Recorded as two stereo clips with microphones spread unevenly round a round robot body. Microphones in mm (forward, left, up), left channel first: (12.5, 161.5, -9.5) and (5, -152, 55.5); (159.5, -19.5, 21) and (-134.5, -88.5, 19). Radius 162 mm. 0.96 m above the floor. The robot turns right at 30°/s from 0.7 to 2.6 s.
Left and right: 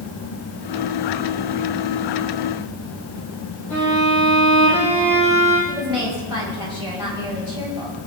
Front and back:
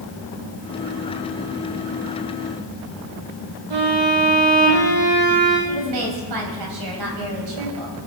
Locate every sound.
3.7 s a violin: 175° left, 9.5 m
5.7 s a woman speaking: 170° right, 5 m